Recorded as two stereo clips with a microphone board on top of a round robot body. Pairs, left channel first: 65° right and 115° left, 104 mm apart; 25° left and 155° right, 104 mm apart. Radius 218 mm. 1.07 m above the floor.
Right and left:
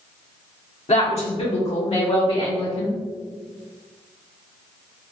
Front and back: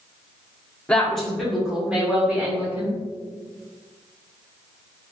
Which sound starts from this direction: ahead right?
A woman speaking, at 0.9 s.